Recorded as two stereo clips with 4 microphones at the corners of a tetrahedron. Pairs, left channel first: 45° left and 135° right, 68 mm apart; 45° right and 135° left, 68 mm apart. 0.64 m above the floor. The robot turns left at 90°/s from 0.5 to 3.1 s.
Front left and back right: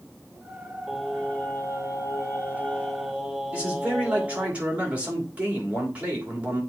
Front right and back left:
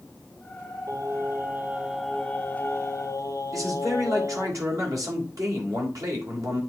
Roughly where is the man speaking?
Behind.